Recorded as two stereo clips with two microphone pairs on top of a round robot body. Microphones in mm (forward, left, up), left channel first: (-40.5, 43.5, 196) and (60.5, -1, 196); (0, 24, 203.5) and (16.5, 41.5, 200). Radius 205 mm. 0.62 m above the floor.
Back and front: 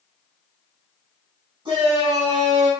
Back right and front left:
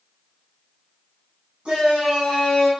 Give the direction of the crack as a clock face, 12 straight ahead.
No crack in this recording.